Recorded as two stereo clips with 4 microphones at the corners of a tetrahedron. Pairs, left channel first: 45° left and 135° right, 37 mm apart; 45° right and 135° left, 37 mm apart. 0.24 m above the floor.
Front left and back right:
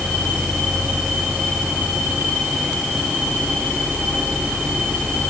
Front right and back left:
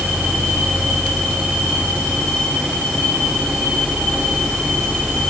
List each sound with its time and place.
Only background noise.